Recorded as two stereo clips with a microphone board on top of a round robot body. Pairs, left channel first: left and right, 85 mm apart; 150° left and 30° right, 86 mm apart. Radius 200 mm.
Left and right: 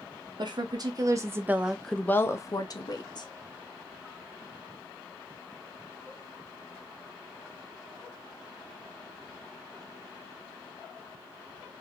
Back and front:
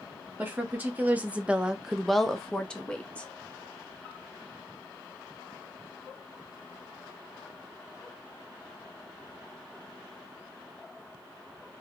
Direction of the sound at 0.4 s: 95° right.